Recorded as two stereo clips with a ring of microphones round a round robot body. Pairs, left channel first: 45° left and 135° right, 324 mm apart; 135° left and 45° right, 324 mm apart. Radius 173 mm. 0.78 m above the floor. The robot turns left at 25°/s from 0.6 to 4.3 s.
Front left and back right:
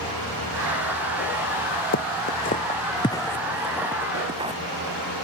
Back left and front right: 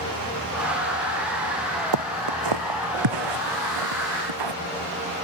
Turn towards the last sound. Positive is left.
turn(degrees=-60)